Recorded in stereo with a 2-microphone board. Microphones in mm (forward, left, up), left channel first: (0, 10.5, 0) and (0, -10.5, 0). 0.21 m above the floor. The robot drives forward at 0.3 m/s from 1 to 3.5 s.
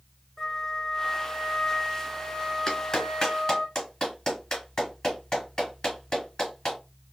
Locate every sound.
0.4 s a flute: 35° left (ahead or behind), 2.5 m; by 3.7 s 45° left (ahead or behind), 2 m
2.7 s a clap: 30° left (ahead or behind), 2.5 m; by 6.8 s 35° left (ahead or behind), 2.5 m